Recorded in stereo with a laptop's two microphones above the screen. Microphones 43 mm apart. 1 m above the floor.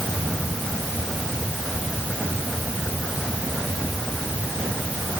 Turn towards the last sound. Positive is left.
No sound to turn to.